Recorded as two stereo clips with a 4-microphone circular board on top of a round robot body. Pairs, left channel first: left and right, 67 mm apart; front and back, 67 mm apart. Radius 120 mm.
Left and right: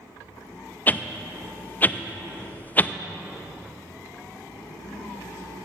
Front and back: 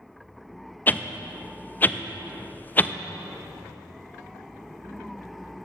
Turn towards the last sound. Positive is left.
turn(degrees=45)